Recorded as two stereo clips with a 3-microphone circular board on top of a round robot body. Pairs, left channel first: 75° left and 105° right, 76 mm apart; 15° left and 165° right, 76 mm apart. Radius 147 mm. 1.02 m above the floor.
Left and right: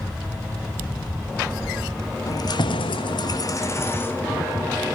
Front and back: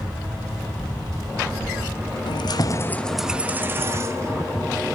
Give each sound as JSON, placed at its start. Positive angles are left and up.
{"t": 2.3, "sound": "keys jangling", "azimuth_deg": 30, "distance_m": 0.8}